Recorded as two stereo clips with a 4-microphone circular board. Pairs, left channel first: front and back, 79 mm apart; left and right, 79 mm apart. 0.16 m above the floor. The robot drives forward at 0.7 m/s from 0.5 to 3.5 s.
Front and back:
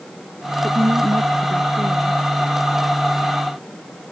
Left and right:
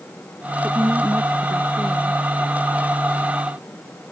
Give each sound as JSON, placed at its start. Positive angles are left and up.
{"t": 0.6, "sound": "a woman speaking", "azimuth_deg": -145}